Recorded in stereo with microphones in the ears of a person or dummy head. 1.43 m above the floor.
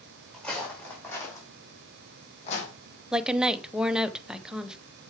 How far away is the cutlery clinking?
I don't hear cutlery clinking.